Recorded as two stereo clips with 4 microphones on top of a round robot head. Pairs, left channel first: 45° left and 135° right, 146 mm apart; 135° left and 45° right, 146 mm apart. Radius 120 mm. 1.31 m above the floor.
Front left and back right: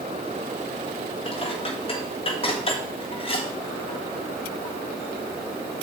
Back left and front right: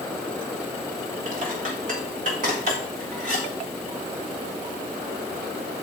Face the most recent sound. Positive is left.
turn(degrees=-10)